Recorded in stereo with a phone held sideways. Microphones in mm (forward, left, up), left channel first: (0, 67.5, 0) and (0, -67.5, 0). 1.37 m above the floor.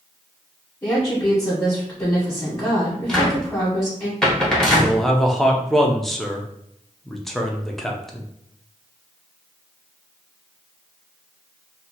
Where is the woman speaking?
20° left (ahead or behind), 1.3 m.